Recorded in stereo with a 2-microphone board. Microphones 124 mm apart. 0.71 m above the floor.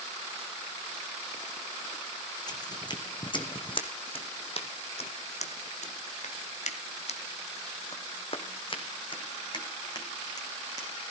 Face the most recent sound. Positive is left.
turn(degrees=30)  # may be behind; listen again after turning